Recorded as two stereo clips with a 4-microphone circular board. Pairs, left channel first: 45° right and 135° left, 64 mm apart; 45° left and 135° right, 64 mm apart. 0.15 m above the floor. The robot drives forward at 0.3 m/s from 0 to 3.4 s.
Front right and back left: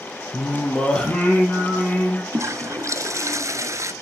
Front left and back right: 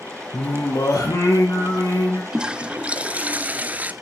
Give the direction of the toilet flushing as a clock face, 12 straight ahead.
7 o'clock.